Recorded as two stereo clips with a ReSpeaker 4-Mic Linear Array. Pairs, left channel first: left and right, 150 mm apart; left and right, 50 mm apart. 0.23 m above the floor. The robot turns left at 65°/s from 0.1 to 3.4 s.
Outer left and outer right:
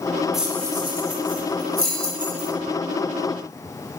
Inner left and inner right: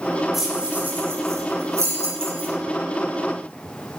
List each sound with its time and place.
0.3 s keys jangling: centre (ahead or behind), 8 m; by 2.5 s 40° right (ahead or behind), 8 m